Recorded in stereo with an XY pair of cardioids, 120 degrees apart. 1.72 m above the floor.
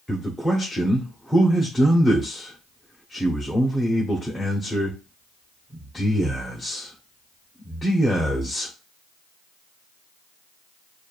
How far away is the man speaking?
About 0.9 m.